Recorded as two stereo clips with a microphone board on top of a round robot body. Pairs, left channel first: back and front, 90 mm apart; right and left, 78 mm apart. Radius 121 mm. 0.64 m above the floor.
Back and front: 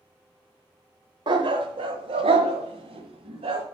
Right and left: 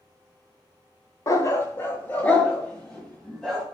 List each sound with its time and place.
1.3 s a dog barking: 35° right, 0.9 m; by 3.6 s 5° right, 1.8 m